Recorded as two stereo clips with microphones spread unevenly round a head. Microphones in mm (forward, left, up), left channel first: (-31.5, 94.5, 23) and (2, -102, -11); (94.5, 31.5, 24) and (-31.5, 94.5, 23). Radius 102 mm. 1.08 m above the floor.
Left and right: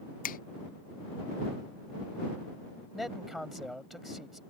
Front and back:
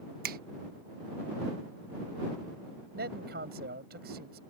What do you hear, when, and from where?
0.2 s a finger snap: 155° left
2.9 s a man speaking: 170° right